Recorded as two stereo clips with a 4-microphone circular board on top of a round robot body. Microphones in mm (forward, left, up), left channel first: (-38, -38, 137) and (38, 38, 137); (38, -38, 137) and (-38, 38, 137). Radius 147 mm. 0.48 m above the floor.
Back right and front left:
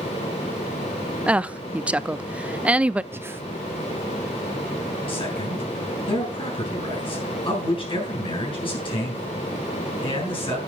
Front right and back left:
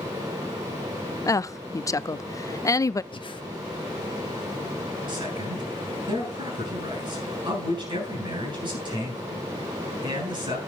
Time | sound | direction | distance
1.3 | a woman speaking | 25° right | 0.7 m
3.1 | breathing | 20° right | 1.0 m
5.1 | a man speaking | straight behind | 8 m